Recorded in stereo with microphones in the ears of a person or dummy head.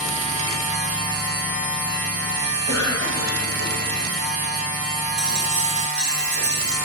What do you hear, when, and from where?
0.0 s a machine running: 60° right (ahead or behind), 1.6 m
2.7 s a cough: 20° left (ahead or behind), 1.9 m
5.2 s a dropped coin: 40° right (ahead or behind), 1.7 m